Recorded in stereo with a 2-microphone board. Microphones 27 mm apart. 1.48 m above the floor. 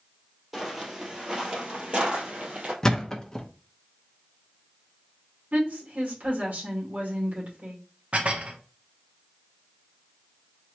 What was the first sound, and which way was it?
Footsteps, 10° right (ahead or behind).